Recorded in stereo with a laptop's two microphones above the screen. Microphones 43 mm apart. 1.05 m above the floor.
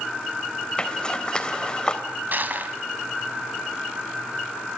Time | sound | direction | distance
0.8 | a zipper | 20° left (ahead or behind) | 3 m
2.3 | crushing | 50° right (ahead or behind) | 1.9 m